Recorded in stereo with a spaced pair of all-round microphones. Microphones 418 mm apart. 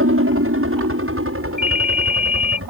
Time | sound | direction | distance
0.0 | a helicopter | 30° right (ahead or behind) | ?
1.6 | a ringtone | 75° right (ahead or behind) | ?